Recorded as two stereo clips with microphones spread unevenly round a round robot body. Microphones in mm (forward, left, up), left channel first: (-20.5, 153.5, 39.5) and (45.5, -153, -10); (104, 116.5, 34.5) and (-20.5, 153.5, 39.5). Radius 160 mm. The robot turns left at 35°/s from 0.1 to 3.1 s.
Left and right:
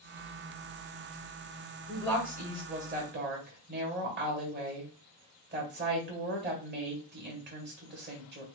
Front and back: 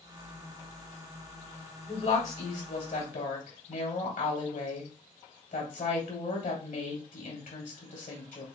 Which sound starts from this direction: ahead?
A woman speaking, at 1.9 s.